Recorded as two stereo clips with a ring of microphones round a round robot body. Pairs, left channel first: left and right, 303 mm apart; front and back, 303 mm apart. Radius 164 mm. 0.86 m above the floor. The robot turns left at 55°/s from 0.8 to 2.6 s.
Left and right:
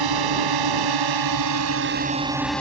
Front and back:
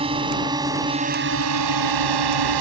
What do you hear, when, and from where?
0.0 s a drone: 105° right; by 2.6 s 175° left